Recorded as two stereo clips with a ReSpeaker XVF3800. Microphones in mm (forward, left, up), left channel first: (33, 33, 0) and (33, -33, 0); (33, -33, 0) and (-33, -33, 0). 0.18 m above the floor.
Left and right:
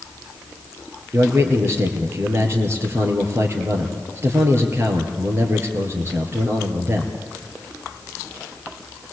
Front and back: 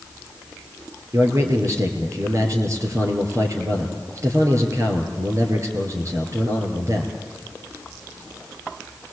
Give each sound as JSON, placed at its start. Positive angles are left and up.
{"t": 1.1, "sound": "a man speaking", "azimuth_deg": -140, "distance_m": 4.0}